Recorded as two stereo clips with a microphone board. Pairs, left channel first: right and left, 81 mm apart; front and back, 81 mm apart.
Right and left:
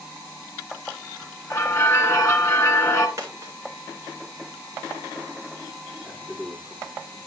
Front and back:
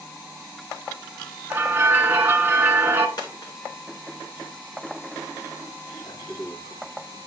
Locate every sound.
1.5 s a bell: 130° right, 1.1 m
3.2 s a dropped coin: 40° left, 3 m
6.0 s a man speaking: 5° left, 7 m